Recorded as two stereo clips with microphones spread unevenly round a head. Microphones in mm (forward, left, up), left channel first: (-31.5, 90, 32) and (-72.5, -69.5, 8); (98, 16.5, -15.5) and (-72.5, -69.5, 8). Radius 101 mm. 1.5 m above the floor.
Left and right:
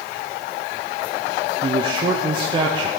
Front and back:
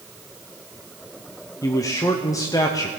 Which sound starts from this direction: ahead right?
A man speaking, at 1.6 s.